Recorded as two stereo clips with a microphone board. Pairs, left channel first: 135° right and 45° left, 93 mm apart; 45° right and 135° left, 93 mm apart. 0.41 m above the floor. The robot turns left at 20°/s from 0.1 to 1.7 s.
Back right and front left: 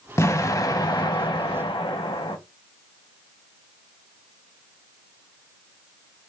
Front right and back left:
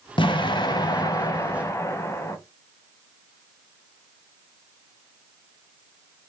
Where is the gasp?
I don't hear a gasp.